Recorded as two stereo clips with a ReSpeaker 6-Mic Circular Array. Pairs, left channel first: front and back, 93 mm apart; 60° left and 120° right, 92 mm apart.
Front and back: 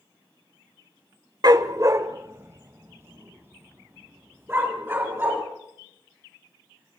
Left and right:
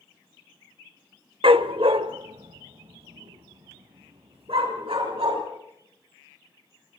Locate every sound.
1.4 s a dog barking: 135° right, 1.1 m; by 5.4 s 115° right, 6 m